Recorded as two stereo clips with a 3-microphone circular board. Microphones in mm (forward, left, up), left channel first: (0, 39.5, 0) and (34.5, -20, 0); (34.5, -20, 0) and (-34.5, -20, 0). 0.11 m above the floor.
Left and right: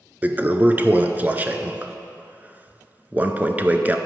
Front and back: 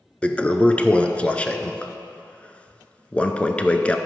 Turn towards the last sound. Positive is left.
turn(degrees=-45)